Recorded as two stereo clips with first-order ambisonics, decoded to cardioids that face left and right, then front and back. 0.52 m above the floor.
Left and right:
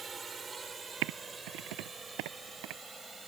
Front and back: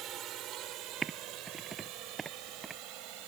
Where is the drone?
155° right; by 3.3 s 165° right.